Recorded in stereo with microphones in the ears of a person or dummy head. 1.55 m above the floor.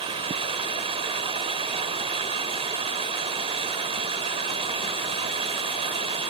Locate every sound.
0.0 s running water: 35° right (ahead or behind)